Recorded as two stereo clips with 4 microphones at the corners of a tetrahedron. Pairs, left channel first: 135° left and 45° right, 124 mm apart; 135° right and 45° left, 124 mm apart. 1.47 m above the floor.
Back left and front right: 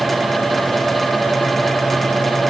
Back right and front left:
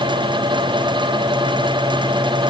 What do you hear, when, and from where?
Only background noise.